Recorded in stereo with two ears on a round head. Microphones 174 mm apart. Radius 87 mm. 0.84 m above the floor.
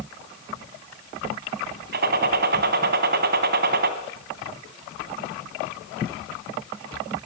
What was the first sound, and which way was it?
A gunshot, 55° right (ahead or behind).